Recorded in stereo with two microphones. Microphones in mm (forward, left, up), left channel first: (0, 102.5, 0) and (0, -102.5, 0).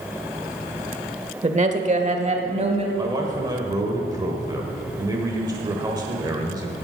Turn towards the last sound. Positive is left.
turn(degrees=-20)  # may be behind; listen again after turning